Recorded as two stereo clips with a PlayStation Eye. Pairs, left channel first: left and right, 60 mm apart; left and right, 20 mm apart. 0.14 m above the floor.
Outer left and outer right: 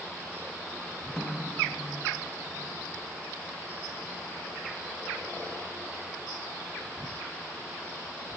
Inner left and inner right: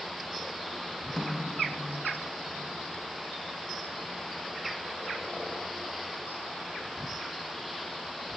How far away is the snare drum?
About 2.5 m.